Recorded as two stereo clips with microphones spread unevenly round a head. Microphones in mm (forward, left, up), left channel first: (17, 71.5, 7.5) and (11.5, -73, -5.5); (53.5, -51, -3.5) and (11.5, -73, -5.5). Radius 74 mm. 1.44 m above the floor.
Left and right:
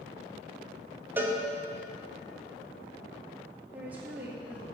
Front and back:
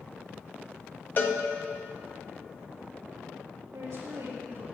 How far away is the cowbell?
About 1.6 m.